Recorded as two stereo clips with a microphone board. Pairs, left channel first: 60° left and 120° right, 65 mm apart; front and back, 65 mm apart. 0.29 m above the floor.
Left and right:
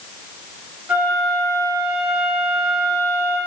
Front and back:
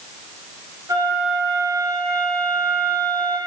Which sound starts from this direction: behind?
A flute, at 0.9 s.